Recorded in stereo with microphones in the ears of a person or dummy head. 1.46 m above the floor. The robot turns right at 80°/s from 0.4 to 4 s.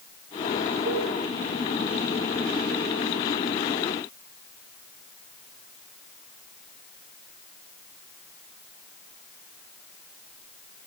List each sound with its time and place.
0.8 s a cowbell: 30° right (ahead or behind), 7 m; by 1.1 s 50° right (ahead or behind), 7 m